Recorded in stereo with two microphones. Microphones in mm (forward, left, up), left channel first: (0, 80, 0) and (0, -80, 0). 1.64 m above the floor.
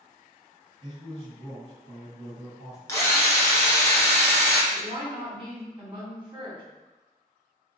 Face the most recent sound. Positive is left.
turn(degrees=-30)  # may be behind; listen again after turning